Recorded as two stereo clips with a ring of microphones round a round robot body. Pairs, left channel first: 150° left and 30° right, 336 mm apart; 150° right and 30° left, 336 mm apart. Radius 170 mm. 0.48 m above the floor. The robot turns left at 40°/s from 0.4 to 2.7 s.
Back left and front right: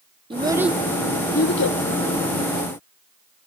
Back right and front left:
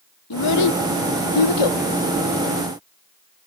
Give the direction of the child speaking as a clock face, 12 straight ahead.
4 o'clock.